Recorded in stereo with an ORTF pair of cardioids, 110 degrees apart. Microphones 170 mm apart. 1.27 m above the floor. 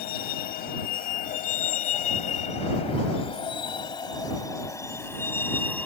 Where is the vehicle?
70° left; by 5.9 s 10° left.